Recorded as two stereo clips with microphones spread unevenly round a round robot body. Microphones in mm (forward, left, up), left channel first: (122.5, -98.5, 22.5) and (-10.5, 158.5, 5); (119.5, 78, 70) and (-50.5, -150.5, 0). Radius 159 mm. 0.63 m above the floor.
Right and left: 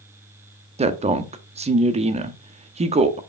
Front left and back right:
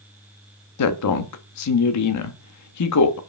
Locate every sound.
0.8 s a woman speaking: 60° left, 0.9 m